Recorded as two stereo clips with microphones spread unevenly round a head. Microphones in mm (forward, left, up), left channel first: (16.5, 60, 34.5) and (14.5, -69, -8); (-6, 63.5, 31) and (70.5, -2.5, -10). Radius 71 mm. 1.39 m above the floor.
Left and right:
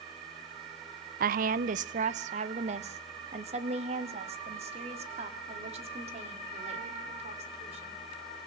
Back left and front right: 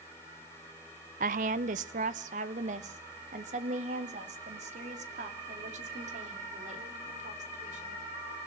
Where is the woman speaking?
65° right, 0.5 m; by 8.0 s 45° right, 4.5 m.